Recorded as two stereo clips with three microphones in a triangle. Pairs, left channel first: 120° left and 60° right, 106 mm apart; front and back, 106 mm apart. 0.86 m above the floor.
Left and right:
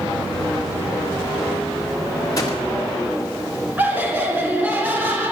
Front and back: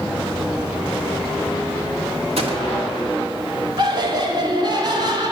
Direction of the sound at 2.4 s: 175° left.